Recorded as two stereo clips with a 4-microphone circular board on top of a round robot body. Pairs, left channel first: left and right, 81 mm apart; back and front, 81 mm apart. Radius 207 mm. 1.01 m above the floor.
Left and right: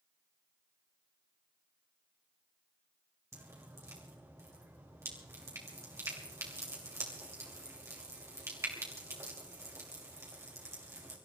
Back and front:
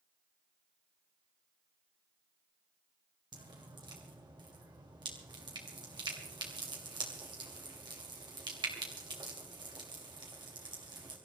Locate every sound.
3.3 s dripping: 30° right, 2.5 m